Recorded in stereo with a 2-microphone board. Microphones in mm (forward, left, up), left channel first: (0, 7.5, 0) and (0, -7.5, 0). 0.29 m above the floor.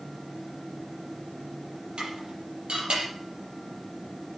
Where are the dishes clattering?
85° right, 5.5 m.